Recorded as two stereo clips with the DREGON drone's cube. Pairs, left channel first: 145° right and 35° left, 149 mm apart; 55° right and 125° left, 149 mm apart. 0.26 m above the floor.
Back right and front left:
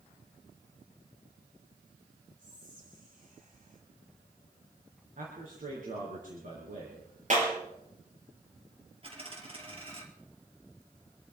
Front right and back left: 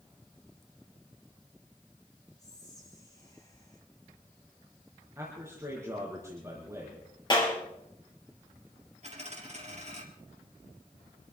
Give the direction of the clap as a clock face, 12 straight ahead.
12 o'clock.